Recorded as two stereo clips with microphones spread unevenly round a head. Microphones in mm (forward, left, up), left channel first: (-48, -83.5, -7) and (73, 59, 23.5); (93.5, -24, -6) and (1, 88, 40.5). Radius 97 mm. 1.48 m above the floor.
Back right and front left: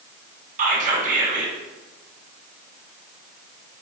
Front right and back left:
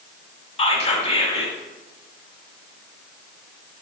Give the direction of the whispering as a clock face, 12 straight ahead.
12 o'clock.